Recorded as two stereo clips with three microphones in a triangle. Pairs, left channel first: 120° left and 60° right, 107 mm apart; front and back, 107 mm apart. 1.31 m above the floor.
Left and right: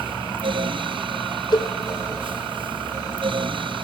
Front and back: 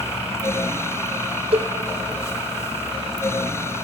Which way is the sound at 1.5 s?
165° left.